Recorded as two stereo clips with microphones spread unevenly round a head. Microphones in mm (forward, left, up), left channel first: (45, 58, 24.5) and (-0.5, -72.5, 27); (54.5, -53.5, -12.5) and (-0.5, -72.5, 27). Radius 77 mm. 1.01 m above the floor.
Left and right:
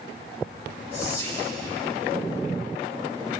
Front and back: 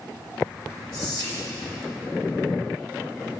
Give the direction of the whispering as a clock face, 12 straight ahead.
8 o'clock.